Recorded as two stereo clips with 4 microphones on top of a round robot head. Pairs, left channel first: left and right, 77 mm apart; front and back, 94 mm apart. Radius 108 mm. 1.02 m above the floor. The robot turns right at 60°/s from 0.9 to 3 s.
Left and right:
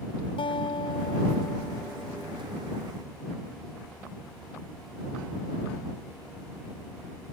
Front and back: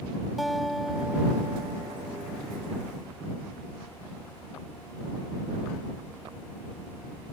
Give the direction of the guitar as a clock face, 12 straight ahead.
9 o'clock.